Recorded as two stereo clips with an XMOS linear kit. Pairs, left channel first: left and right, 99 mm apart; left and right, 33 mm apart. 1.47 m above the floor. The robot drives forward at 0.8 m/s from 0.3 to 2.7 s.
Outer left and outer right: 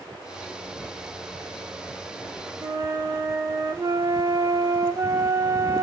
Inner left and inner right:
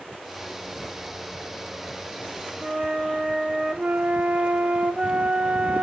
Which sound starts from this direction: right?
A flute, at 2.6 s.